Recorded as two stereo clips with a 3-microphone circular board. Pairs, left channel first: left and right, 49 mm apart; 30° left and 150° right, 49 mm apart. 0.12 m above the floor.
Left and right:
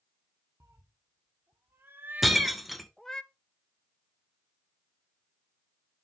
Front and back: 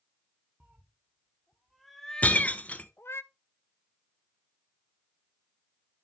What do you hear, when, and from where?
0.6 s a cat meowing: 85° right, 1.2 m; by 3.2 s 20° left, 0.6 m
2.2 s breaking glass: 5° right, 0.9 m